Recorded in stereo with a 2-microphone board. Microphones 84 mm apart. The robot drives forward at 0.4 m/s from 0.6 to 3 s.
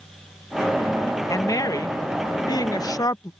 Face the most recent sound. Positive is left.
turn(degrees=50)  # may be behind; listen again after turning